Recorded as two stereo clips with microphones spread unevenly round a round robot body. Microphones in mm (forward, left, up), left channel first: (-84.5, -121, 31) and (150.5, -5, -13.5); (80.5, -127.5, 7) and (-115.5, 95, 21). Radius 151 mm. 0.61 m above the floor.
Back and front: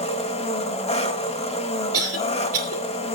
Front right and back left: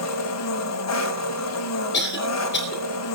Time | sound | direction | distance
0.0 | an engine running | 85° right | 2 m
1.9 | a cough | 5° left | 3.5 m